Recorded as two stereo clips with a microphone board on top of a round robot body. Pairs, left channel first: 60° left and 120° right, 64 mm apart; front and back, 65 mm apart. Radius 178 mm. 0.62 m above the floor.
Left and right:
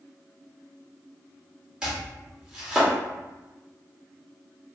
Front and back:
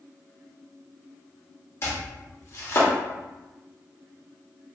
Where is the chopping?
40° right, 1.7 m.